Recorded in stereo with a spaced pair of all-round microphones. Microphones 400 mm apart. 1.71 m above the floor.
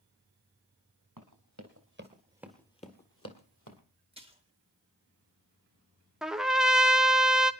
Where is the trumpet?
Centre (ahead or behind), 0.7 m.